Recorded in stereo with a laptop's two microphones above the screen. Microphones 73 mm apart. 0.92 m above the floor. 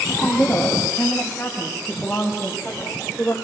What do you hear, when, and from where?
0.1 s a woman speaking: 10° left (ahead or behind), 7.5 m